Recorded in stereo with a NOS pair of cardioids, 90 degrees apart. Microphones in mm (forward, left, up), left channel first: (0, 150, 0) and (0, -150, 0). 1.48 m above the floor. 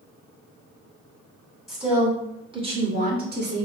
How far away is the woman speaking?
About 1.9 m.